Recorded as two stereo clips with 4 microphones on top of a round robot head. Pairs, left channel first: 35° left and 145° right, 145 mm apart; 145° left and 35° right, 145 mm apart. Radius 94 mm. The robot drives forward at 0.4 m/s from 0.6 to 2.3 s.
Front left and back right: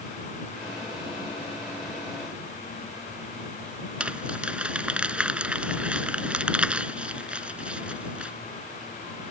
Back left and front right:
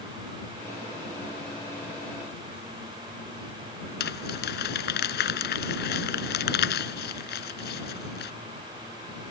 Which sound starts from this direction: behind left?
Crumpling, at 4.0 s.